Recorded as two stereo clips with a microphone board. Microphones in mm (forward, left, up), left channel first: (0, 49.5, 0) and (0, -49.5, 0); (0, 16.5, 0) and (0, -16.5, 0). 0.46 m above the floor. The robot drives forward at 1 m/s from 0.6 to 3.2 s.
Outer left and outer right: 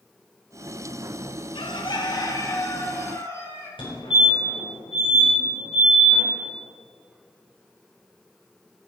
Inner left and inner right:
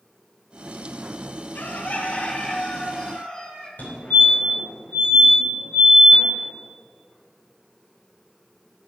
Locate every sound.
1.6 s a bird: 65° left (ahead or behind), 1.1 m; by 3.7 s 25° left (ahead or behind), 2 m
3.8 s a fire alarm: 60° left (ahead or behind), 4 m